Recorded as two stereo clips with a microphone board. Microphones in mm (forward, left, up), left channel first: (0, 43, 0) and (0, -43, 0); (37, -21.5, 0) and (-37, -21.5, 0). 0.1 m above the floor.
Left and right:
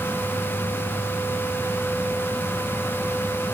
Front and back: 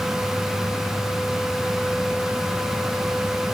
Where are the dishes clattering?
No dishes clattering in this recording.